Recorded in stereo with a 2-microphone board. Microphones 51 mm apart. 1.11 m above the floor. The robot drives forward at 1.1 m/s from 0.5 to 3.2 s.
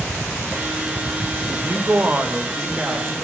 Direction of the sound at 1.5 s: 50° right (ahead or behind).